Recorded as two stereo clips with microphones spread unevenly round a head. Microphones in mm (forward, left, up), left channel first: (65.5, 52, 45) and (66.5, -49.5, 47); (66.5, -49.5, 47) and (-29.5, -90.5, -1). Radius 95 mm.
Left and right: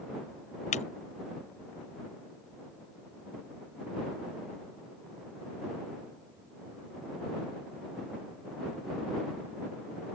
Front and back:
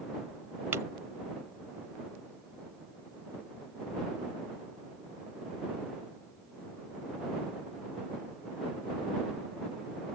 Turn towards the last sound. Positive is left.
turn(degrees=120)